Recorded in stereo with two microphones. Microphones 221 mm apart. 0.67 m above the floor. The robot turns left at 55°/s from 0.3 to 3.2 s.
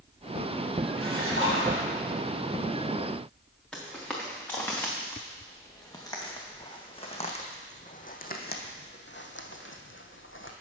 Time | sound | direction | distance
1.0 | a splash | 70° right | 4.5 m
3.7 | footsteps | 5° left (ahead or behind) | 3 m